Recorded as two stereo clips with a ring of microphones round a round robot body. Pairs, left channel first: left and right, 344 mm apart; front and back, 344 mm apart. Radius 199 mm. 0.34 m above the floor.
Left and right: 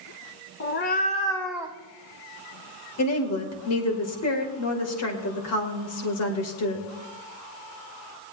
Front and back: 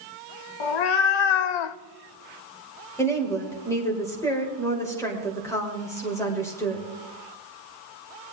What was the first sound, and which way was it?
A cat meowing, 30° left.